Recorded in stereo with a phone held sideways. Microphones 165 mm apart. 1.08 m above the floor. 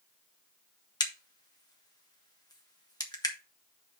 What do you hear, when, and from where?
1.0 s a crack: 25° left (ahead or behind), 1.3 m